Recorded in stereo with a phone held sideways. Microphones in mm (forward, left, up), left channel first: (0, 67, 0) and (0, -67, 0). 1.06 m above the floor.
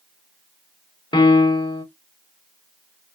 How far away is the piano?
About 0.8 m.